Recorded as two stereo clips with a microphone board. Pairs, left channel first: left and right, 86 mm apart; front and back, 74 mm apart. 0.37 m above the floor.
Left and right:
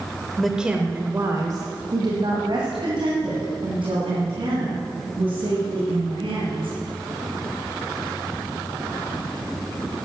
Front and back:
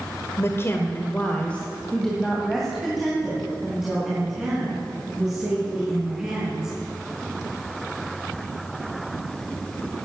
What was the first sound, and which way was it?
A woman speaking, 5° left.